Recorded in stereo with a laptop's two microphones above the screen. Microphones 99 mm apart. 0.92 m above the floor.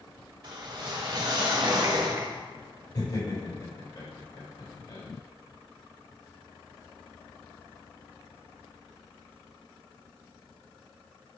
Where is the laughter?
40° left (ahead or behind), 3 m.